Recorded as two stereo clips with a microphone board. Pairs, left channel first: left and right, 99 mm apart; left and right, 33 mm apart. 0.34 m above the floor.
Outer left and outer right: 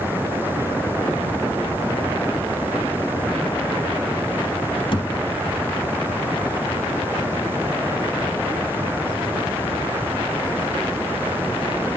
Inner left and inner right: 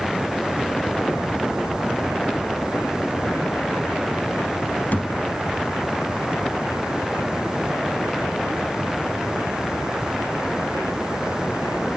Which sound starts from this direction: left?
A thud, at 4.9 s.